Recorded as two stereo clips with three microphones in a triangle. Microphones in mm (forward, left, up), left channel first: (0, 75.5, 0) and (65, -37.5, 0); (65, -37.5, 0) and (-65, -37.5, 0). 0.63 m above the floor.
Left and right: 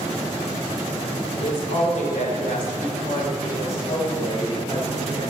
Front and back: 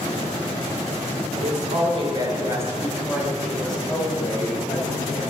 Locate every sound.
1.4 s a woman speaking: 155° left, 2.5 m; by 5.2 s 70° left, 5 m